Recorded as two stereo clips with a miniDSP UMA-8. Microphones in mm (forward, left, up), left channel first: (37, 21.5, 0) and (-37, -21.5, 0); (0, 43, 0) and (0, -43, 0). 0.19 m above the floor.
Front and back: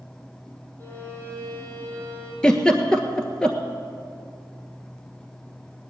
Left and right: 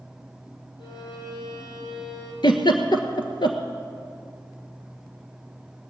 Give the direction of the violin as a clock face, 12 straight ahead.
9 o'clock.